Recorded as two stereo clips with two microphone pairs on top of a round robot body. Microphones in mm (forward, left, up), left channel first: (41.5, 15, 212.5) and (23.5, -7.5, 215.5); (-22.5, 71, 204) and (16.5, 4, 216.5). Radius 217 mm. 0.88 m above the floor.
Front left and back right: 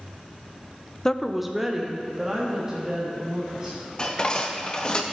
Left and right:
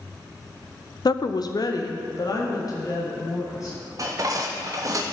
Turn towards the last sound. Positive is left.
turn(degrees=-15)